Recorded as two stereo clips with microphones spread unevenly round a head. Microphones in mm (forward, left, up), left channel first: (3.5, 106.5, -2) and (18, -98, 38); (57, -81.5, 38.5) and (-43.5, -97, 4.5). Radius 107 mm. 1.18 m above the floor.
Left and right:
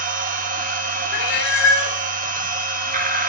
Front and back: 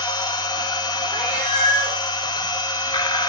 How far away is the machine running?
About 1.1 m.